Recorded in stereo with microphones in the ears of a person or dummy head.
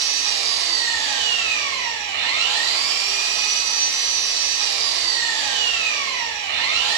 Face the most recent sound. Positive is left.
turn(degrees=-65)  # may be behind; listen again after turning